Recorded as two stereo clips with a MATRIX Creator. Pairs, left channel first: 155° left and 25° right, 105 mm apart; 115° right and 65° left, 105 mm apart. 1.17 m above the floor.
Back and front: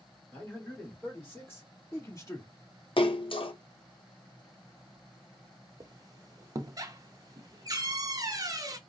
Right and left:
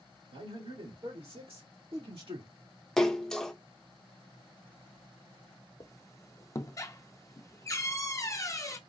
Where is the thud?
No thud in this recording.